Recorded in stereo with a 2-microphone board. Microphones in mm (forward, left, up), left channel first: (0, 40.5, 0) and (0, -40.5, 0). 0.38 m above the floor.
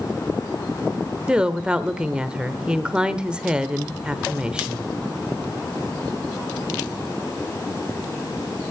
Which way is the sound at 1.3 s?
10° right (ahead or behind).